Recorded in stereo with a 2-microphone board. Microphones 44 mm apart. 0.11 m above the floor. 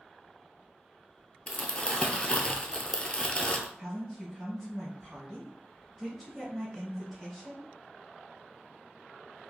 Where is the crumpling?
25° left (ahead or behind), 0.5 m.